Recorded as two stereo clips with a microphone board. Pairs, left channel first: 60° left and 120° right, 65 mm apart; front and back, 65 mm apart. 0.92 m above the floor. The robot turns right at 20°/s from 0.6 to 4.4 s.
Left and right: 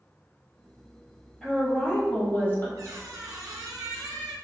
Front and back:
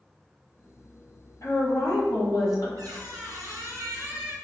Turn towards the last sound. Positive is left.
turn(degrees=-125)